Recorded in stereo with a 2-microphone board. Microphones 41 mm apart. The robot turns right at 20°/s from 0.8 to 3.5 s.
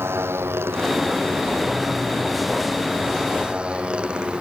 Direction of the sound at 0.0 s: 80° right.